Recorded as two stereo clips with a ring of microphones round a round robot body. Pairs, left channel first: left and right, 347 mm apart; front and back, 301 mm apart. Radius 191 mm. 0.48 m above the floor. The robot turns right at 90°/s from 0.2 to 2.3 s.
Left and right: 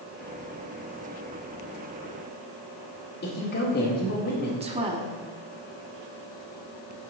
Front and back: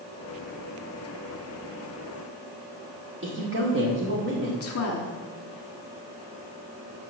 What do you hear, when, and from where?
3.2 s a woman speaking: 145° left, 1.8 m
4.6 s a woman speaking: 20° right, 1.4 m